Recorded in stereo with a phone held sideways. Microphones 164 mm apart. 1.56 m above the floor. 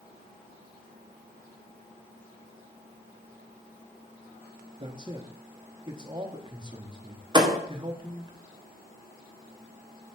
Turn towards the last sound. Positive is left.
turn(degrees=-25)  # may be behind; listen again after turning